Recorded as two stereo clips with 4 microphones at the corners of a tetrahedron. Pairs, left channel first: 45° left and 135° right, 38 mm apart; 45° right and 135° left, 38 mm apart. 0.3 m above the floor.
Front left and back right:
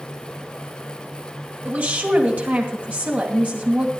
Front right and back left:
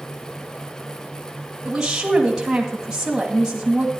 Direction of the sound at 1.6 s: 155° right.